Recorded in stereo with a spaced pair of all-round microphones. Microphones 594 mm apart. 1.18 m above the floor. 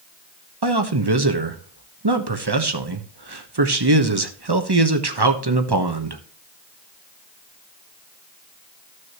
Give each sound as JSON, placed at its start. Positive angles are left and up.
{"t": 0.6, "sound": "a man speaking", "side_deg": -40, "distance_m": 1.2}